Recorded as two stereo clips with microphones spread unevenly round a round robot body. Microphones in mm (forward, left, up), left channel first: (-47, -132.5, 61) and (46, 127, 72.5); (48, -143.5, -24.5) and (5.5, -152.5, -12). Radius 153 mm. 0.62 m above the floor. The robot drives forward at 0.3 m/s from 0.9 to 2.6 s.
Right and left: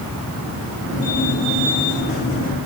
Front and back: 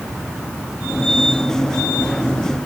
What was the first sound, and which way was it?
Only background noise.